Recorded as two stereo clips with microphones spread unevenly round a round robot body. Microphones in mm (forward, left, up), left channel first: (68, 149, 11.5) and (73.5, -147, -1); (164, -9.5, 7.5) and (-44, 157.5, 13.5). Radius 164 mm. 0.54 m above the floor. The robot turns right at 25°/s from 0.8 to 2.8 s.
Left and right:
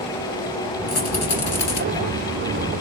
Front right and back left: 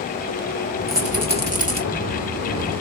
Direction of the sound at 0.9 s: 50° left.